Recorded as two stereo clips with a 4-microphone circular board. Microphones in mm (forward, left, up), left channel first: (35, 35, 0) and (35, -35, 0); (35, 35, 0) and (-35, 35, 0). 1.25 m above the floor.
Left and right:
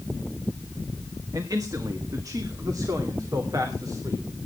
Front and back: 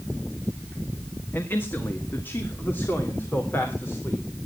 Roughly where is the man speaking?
Ahead right.